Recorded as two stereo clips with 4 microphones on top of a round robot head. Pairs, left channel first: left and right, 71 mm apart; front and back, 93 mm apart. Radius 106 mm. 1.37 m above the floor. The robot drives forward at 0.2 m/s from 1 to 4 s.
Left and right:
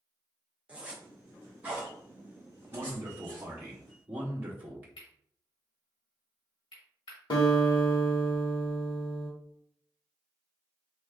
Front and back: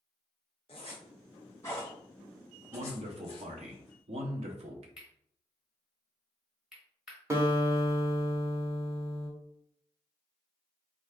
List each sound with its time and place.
0.7 s a zipper: 25° right, 0.6 m; by 3.5 s 155° right, 0.6 m
2.7 s a man speaking: 155° right, 0.7 m; by 4.9 s 160° right, 0.9 m
5.0 s cutlery clinking: 95° left, 1.0 m
7.3 s a guitar: 115° left, 1.2 m